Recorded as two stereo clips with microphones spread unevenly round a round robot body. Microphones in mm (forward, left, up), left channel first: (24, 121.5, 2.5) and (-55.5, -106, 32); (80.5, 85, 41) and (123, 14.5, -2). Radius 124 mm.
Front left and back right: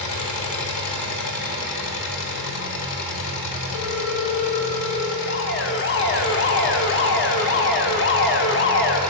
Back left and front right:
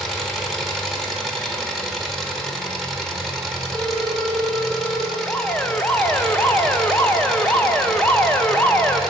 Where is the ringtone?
40° left, 1.5 m.